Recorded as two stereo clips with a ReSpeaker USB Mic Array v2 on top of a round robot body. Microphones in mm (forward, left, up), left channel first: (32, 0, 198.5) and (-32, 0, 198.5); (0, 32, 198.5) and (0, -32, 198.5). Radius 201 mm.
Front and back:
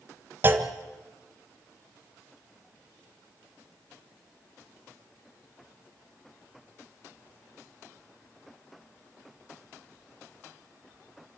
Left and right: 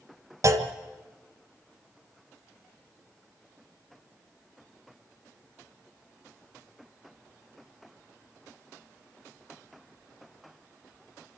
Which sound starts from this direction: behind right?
A clunk, at 0.4 s.